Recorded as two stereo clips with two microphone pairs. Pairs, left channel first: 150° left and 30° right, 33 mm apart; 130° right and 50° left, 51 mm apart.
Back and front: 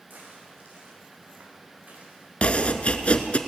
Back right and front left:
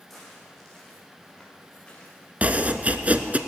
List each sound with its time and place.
0.1 s footsteps: 45° right, 5 m; by 2.3 s 65° right, 4 m
2.4 s chopping: 105° left, 0.7 m